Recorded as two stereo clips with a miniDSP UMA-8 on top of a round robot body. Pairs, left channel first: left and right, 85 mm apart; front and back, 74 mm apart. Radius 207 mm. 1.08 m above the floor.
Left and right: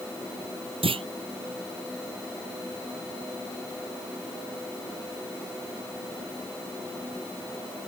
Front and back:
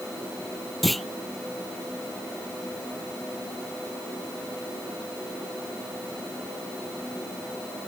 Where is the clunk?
90° right.